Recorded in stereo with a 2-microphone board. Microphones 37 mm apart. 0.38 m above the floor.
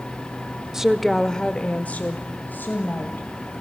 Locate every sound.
0.7 s a woman speaking: 10° right (ahead or behind), 0.8 m; by 3.6 s 70° left (ahead or behind), 2 m